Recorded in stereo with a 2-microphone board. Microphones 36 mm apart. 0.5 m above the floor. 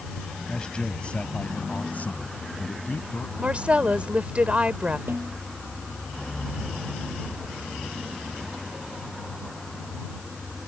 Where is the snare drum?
80° right.